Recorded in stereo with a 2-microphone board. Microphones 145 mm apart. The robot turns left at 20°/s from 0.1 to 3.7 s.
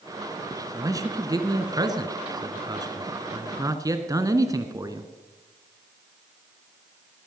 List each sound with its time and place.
0.7 s a man speaking: 25° right (ahead or behind), 1.3 m